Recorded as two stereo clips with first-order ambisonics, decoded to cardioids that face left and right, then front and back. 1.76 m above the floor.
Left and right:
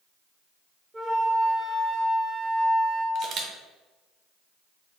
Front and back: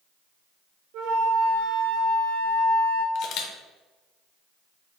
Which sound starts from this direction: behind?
A flute, at 0.9 s.